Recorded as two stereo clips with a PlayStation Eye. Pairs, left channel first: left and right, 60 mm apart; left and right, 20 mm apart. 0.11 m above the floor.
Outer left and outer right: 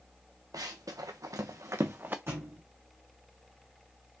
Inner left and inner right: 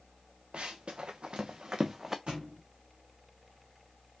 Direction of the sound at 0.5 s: 85° right.